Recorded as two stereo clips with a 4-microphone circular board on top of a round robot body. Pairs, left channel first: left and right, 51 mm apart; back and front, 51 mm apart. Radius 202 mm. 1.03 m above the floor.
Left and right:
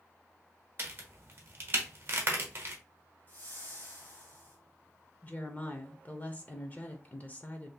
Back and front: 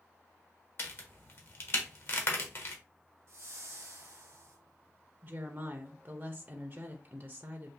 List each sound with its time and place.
0.8 s a crack: 135° right, 0.9 m
3.3 s a whoosh: 35° left, 0.8 m
5.2 s a woman speaking: 45° left, 0.9 m